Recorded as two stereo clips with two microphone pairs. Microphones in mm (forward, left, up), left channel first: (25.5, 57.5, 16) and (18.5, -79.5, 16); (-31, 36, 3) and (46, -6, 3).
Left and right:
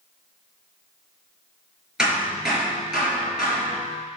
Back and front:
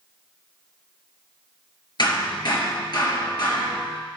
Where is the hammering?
Straight behind, 4 m.